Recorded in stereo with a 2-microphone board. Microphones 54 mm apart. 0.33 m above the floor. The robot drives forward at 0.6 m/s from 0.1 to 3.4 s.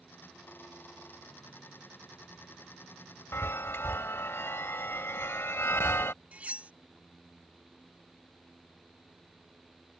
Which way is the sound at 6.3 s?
25° right (ahead or behind).